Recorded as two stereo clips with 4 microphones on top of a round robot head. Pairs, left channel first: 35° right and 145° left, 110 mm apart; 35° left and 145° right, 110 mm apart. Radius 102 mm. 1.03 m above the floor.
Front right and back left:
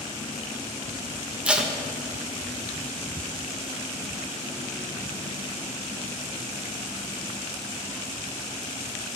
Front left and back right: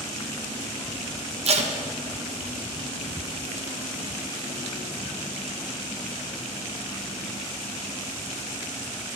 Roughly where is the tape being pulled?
Behind right.